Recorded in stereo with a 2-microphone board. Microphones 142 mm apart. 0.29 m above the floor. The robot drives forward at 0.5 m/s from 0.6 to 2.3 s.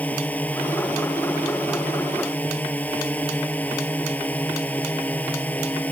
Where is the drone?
10° left (ahead or behind).